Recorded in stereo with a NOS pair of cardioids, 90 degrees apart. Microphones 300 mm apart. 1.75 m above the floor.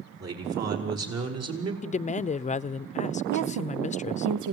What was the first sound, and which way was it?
A man speaking, 55° right.